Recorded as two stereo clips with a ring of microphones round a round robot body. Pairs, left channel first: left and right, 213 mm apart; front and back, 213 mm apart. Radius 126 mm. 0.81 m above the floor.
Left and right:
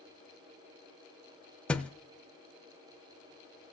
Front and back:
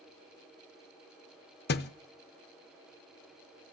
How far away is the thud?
About 0.5 m.